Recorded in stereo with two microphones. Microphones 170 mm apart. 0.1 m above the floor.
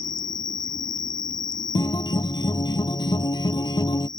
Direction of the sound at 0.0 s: 55° left (ahead or behind).